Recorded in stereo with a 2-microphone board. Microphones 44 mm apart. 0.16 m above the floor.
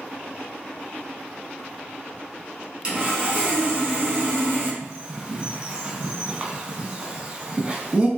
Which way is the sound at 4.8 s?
25° right (ahead or behind).